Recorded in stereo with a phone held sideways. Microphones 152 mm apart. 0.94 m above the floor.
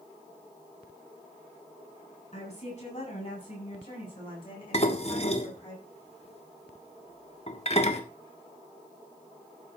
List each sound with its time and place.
2.3 s a woman speaking: 45° left (ahead or behind), 8 m; by 5.7 s 30° left (ahead or behind), 8.5 m
4.7 s dishes clattering: 45° left (ahead or behind), 1.4 m